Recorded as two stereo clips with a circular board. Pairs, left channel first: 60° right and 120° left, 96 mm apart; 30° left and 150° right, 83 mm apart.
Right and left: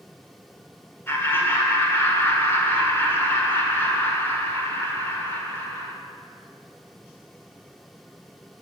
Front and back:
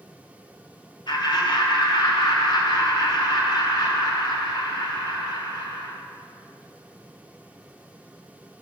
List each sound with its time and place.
1.1 s laughter: 5° left, 1.6 m